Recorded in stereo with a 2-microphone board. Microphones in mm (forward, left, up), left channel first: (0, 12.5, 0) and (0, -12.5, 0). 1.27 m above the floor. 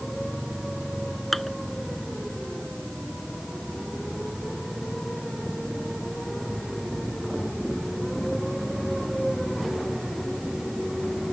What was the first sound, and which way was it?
Dishes clattering, 10° left (ahead or behind).